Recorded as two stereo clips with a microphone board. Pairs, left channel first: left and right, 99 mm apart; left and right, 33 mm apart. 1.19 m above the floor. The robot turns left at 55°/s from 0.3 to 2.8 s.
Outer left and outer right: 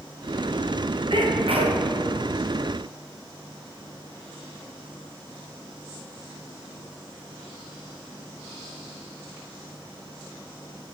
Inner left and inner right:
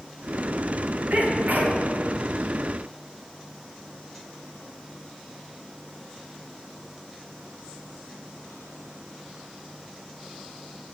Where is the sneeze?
60° right, 1.3 m; by 1.8 s 100° right, 1.3 m.